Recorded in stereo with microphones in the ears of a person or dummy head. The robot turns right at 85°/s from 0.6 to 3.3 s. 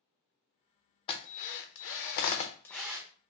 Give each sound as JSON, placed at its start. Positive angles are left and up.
{"t": 1.1, "sound": "a drill", "side_deg": 30, "distance_m": 0.5}